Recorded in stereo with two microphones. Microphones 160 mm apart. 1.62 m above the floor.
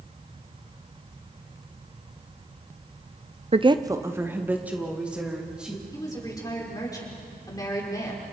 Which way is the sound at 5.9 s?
20° left (ahead or behind).